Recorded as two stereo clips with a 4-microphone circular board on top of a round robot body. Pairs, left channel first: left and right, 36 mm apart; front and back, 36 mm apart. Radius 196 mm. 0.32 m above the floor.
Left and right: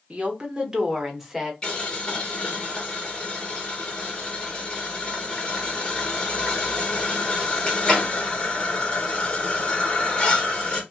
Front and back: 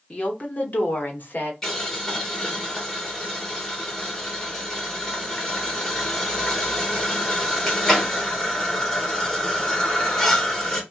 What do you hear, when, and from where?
0.1 s a woman speaking: 45° right, 1.2 m; by 1.5 s 5° right, 1.4 m
1.6 s boiling: 60° left, 1.6 m